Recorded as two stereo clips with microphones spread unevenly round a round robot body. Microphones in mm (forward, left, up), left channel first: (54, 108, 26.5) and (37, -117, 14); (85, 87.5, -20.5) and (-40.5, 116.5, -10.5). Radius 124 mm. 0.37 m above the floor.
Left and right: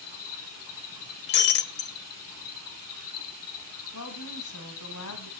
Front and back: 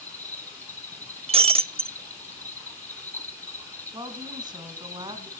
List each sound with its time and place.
0.0 s an insect: 65° left, 1.7 m
1.3 s breaking glass: 125° left, 0.9 m
3.9 s a woman speaking: 110° left, 3.5 m